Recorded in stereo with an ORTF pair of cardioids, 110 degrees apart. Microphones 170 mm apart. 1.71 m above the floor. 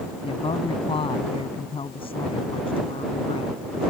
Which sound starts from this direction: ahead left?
A woman speaking, at 0.2 s.